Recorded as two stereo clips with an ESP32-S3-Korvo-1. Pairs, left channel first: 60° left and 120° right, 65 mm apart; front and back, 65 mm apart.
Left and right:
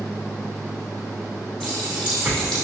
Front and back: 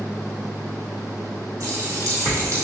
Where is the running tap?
140° left, 3 m.